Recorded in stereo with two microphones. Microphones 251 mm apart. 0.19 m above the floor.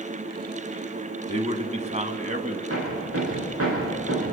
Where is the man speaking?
25° right (ahead or behind), 1.9 m; by 2.6 s 30° right (ahead or behind), 1.7 m.